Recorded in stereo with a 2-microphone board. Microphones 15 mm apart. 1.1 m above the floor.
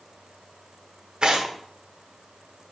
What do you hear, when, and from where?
1.2 s tearing paper: 60° right (ahead or behind), 1.3 m